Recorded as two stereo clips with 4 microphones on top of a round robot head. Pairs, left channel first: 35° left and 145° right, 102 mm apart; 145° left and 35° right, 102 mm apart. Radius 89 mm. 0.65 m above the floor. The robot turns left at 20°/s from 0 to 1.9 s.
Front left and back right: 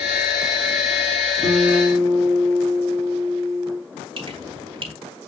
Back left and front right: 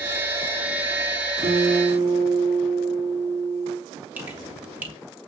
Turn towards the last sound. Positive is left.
turn(degrees=-110)